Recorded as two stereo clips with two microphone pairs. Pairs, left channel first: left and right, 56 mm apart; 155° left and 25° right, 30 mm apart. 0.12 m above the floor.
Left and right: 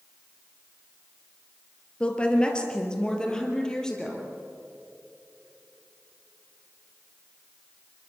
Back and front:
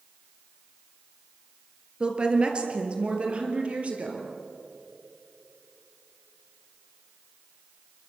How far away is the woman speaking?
About 3 m.